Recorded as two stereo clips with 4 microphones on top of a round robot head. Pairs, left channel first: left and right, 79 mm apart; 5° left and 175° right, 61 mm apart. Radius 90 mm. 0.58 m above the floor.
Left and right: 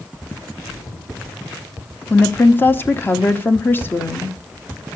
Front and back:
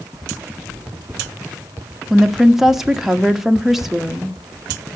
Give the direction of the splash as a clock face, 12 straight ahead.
8 o'clock.